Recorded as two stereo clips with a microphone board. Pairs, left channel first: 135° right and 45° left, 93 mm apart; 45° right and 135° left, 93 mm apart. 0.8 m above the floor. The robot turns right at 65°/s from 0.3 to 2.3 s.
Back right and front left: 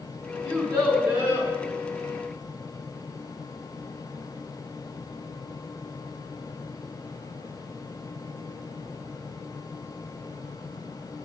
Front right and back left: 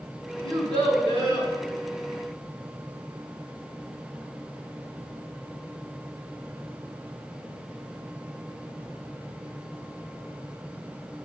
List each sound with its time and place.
0.4 s a child speaking: 75° right, 3 m; by 1.5 s 5° right, 3 m